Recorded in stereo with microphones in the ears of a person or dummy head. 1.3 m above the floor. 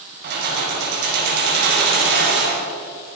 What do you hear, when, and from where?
0.2 s keys jangling: 55° right (ahead or behind), 5 m